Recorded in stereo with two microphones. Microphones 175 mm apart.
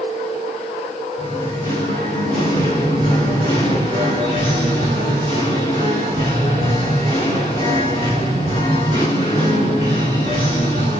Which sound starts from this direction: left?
Singing, at 1.2 s.